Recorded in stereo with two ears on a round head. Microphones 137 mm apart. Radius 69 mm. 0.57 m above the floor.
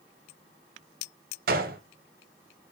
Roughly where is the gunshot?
Right.